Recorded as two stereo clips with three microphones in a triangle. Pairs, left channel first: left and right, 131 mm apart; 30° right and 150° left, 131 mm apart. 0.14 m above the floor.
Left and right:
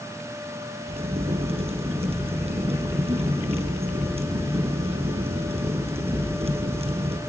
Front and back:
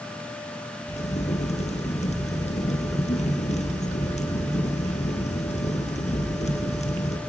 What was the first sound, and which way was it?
A crack, 55° right.